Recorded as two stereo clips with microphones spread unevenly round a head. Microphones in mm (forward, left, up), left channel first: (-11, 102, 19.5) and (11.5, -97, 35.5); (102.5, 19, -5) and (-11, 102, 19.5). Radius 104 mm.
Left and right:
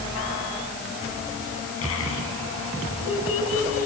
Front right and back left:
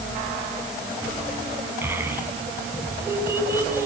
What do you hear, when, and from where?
1.8 s a child speaking: 70° left, 7.5 m; by 3.9 s 75° left, 6.5 m